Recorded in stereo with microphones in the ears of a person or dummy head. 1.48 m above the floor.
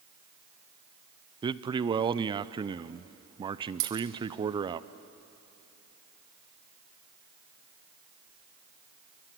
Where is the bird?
I don't hear a bird.